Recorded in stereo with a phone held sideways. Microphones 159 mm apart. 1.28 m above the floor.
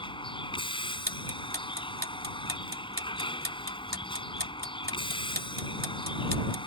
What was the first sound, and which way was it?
A vehicle, 35° left (ahead or behind).